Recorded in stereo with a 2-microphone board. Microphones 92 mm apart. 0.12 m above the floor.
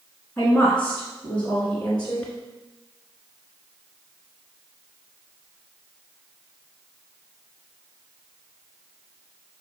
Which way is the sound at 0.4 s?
10° left (ahead or behind).